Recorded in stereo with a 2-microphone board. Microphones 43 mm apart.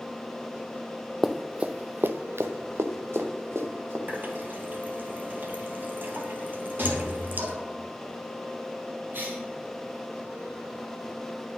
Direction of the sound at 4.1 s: 50° right (ahead or behind).